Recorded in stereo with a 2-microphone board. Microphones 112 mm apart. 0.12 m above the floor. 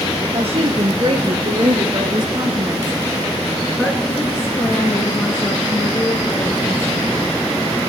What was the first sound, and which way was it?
A woman speaking, 65° right (ahead or behind).